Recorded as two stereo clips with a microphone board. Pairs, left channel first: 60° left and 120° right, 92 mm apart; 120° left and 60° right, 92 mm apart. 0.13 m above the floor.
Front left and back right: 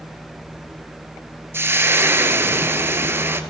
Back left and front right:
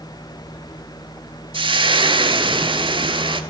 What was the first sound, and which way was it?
Frying, 55° right.